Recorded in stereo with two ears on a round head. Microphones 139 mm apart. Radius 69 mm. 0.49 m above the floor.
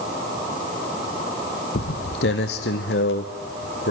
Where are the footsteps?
70° left (ahead or behind), 1.2 m.